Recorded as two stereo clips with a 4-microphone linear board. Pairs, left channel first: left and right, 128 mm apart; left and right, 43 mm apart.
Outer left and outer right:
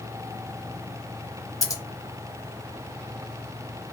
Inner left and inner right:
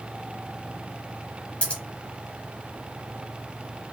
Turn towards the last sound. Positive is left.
turn(degrees=30)  # may be behind; listen again after turning